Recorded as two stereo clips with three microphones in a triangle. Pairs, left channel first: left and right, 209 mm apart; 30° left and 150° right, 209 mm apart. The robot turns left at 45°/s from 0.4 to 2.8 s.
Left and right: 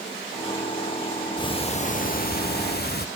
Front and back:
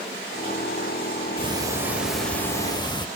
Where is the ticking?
155° left, 0.5 m; by 3.1 s 90° left, 0.5 m.